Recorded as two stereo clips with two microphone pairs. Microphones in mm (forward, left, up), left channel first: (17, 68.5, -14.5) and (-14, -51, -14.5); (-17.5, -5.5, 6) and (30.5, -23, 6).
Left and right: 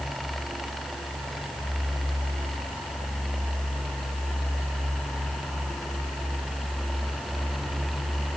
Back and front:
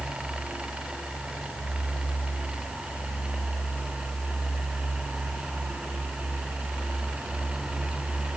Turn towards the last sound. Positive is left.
No sound to turn to.